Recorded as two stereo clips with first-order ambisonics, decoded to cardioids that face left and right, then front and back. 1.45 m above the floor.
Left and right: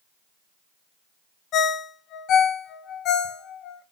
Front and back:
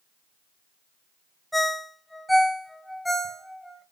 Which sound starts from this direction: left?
A ringtone, at 1.5 s.